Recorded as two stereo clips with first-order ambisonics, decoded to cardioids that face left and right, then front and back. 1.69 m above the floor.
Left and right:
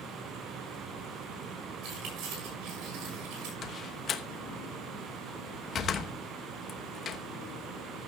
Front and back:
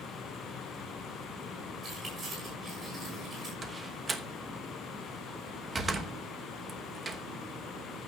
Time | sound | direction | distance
1.8 | keys jangling | 120° right | 6.5 m
3.6 | a door slam | 125° left | 1.0 m